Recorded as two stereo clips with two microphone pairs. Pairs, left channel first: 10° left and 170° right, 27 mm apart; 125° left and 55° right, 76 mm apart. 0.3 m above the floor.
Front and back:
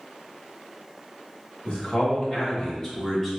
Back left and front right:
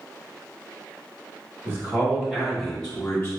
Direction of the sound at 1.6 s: 10° right.